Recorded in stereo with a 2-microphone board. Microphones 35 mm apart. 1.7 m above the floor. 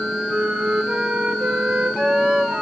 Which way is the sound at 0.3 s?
40° right (ahead or behind).